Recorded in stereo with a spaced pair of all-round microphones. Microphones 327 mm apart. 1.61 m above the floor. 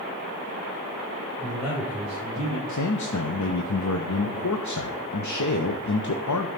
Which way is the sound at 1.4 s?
20° right (ahead or behind).